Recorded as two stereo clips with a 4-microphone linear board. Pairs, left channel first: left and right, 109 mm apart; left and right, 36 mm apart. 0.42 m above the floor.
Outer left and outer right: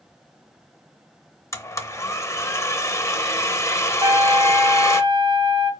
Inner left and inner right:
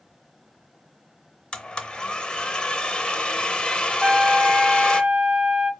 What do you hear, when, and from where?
1.5 s a blender: 25° left (ahead or behind), 0.6 m
4.0 s a trumpet: 40° right (ahead or behind), 0.7 m